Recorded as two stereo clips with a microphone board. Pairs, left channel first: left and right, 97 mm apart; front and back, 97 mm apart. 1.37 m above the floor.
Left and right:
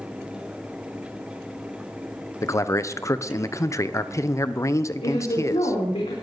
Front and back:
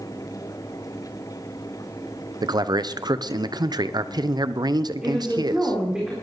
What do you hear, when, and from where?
2.4 s a man speaking: 140° left, 0.8 m
5.0 s a woman speaking: 100° left, 4 m